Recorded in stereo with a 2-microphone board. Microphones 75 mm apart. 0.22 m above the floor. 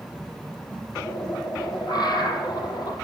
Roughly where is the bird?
Left.